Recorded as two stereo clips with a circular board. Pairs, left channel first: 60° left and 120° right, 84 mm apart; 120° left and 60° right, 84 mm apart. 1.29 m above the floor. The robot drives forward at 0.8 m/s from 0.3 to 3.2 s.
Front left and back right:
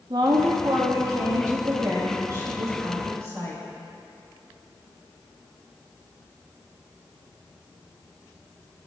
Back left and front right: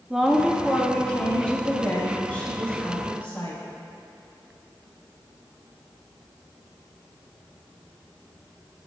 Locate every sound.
0.1 s a woman speaking: 140° right, 0.8 m; by 3.6 s 170° right, 3 m